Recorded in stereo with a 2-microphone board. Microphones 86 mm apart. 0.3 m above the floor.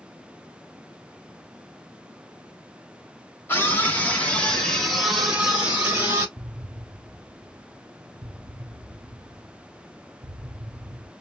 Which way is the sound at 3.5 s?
25° left (ahead or behind).